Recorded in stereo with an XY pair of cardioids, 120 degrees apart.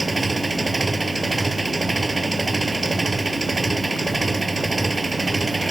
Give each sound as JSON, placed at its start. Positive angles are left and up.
{"t": 0.0, "sound": "an engine running", "azimuth_deg": -15}